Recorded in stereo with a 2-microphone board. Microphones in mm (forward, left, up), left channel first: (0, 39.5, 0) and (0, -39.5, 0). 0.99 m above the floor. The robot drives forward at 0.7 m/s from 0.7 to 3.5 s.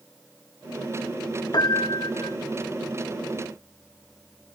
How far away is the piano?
About 0.8 m.